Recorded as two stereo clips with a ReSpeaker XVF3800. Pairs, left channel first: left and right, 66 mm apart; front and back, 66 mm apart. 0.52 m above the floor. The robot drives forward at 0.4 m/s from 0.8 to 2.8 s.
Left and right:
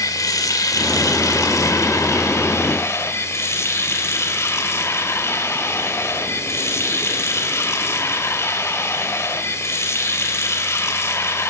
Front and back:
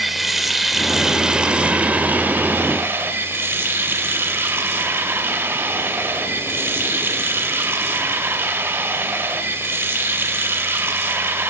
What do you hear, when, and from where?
0.0 s running water: 95° left, 1.2 m; by 11.5 s 130° left, 1.5 m